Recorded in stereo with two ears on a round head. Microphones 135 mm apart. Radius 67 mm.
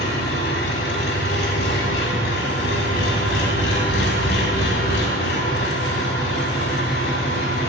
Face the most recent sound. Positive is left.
turn(degrees=75)  # may be behind; listen again after turning